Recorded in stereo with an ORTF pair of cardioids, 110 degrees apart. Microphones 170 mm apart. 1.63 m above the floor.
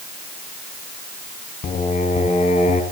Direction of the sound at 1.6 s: 45° left.